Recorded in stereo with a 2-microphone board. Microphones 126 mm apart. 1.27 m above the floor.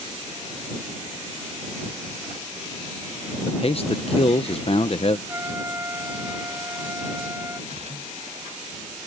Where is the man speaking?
45° left (ahead or behind).